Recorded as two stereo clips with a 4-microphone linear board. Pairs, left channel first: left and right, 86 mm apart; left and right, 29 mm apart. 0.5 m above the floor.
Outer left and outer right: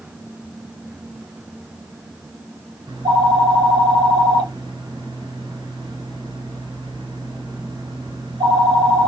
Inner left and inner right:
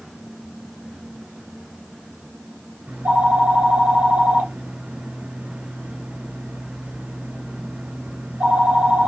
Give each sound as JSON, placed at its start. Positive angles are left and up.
{"t": 2.9, "sound": "a phone ringing", "side_deg": -65, "distance_m": 1.9}